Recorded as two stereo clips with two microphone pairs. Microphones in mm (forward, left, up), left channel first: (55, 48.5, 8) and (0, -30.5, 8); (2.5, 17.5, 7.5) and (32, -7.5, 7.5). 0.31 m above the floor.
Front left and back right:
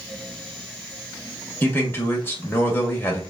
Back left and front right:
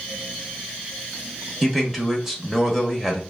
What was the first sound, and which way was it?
A man speaking, 35° left.